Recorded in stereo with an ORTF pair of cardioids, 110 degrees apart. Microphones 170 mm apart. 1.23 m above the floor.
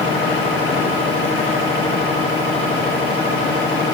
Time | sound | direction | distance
0.0 | a machine running | 70° left | 2.5 m